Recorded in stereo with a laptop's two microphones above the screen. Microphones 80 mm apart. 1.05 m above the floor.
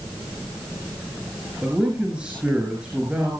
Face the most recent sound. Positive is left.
turn(degrees=-15)  # may be behind; listen again after turning